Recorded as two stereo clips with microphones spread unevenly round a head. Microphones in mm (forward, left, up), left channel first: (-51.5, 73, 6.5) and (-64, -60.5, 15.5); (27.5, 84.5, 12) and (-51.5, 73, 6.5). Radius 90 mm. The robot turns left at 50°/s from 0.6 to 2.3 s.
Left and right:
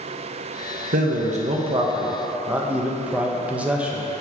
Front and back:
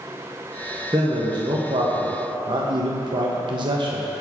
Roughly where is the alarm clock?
No alarm clock in this recording.